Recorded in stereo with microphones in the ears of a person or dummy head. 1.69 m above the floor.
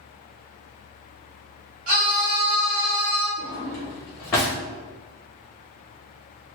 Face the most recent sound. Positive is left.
turn(degrees=5)  # may be behind; listen again after turning